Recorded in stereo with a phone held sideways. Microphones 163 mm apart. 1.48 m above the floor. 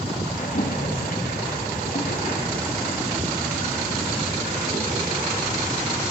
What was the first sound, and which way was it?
A splash, 65° left (ahead or behind).